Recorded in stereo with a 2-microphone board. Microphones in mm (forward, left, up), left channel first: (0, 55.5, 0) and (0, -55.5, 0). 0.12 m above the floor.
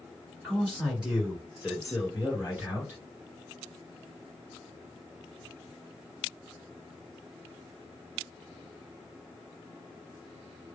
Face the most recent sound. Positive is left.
turn(degrees=-15)  # may be behind; listen again after turning